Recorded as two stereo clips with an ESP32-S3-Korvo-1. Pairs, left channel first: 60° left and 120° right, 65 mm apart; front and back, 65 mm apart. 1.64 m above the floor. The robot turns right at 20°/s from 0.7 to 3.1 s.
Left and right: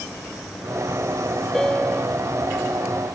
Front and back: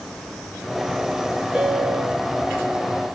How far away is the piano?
About 1.4 m.